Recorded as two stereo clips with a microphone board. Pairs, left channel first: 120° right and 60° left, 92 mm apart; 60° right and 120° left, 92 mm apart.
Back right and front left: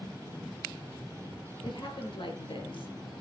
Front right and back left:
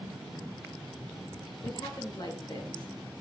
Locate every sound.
1.6 s a woman speaking: 95° right, 4.5 m